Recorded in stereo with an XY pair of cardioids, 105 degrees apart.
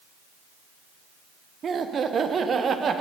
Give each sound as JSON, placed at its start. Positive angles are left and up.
{"t": 1.6, "sound": "laughter", "azimuth_deg": -45, "distance_m": 0.7}